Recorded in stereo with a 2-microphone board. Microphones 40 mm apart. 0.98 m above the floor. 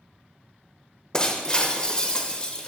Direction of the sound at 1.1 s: 20° left (ahead or behind).